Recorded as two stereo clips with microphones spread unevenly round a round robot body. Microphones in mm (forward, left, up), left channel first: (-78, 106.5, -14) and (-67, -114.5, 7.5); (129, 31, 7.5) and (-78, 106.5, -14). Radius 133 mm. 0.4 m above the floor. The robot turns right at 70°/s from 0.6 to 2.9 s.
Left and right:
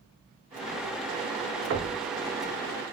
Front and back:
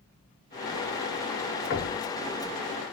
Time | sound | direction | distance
1.7 | knocking | 60° right | 0.8 m